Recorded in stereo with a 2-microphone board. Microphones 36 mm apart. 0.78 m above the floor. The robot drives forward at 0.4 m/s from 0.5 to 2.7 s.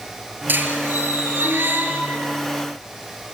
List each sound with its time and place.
0.5 s a squeak: 60° right (ahead or behind), 5 m; by 2.3 s 65° right (ahead or behind), 4.5 m